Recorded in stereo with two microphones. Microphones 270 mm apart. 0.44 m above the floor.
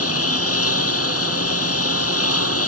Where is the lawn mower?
60° left (ahead or behind).